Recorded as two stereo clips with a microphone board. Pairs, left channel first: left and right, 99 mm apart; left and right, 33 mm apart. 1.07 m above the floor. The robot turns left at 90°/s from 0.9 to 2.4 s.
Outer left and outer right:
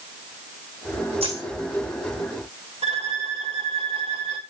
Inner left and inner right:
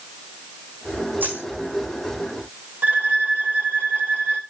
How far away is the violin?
About 2 m.